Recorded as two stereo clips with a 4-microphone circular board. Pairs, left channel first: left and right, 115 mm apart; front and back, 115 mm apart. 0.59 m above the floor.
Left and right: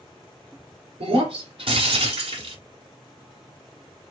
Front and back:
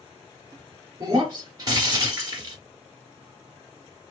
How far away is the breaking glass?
About 1.6 m.